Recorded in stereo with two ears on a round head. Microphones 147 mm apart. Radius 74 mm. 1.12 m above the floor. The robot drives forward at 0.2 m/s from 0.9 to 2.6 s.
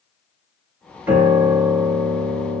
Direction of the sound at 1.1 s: 10° right (ahead or behind).